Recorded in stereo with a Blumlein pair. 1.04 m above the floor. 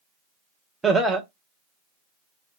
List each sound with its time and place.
0.8 s laughter: 10° right, 0.8 m